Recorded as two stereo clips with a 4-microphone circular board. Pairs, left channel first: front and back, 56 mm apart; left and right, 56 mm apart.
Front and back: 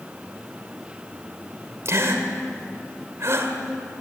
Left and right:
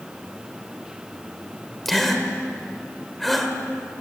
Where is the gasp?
Straight behind, 2 m.